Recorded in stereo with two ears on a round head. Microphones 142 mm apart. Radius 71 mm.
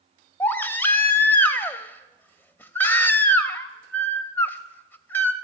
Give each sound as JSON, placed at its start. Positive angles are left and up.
{"t": 0.4, "sound": "a baby crying", "side_deg": 10, "distance_m": 0.6}